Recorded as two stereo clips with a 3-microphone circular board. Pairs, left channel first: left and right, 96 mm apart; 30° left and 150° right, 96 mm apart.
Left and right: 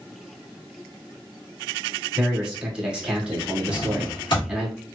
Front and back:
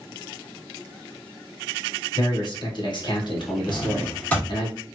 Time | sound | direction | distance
2.1 | a man speaking | 10° right | 1.7 m
3.7 | a drawer | 100° left | 2 m